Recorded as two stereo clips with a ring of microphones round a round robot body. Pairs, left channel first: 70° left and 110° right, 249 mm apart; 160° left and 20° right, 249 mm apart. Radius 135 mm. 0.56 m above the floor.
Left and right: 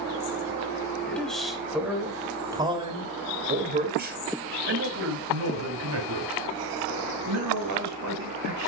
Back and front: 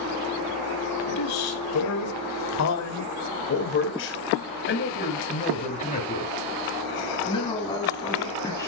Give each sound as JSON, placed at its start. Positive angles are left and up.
{"t": 1.1, "sound": "a man speaking", "azimuth_deg": 150, "distance_m": 4.5}